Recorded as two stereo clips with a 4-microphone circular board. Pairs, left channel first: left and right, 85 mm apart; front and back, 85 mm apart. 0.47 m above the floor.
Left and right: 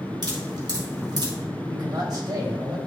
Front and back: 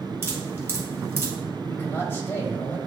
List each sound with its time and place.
0.2 s dripping: 120° right, 2 m
1.7 s a man speaking: 55° right, 2.5 m